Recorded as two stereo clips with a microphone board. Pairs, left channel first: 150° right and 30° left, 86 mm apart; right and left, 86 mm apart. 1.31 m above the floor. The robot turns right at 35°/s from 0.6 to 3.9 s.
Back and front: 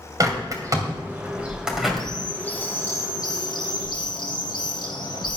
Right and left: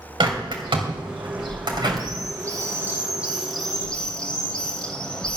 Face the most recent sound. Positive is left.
turn(degrees=-170)